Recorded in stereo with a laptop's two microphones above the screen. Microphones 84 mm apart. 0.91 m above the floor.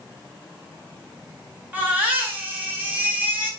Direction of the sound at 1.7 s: 20° right (ahead or behind).